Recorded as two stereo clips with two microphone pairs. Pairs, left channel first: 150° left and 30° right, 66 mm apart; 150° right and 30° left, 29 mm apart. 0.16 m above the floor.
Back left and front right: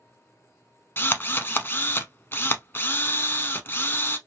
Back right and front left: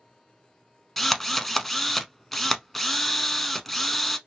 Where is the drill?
130° left, 0.5 m.